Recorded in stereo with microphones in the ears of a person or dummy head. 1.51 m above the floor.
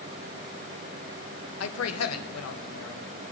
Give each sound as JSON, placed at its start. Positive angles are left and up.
{"t": 1.6, "sound": "a man speaking", "side_deg": 80, "distance_m": 1.4}